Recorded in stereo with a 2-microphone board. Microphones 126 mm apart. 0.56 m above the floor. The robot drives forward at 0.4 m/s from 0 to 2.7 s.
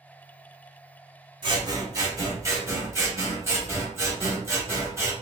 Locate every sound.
1.4 s scissors: 35° right (ahead or behind), 0.8 m; by 5.1 s 20° right (ahead or behind), 1.3 m